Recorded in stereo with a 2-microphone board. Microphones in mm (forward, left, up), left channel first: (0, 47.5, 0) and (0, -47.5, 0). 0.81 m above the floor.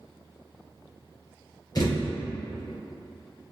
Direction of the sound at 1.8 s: 45° left (ahead or behind).